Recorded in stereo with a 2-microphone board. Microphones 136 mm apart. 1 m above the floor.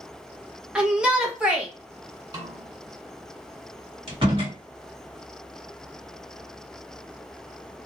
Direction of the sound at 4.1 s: 40° right (ahead or behind).